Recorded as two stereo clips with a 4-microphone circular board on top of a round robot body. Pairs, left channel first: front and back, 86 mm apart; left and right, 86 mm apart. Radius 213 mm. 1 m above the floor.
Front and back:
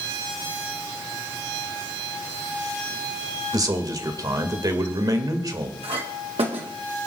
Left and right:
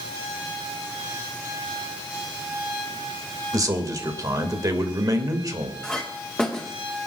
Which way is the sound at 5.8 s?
170° left.